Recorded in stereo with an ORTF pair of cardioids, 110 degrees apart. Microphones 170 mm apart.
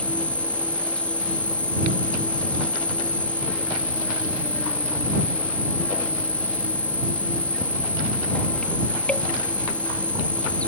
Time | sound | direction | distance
0.0 | an insect | 5° left | ?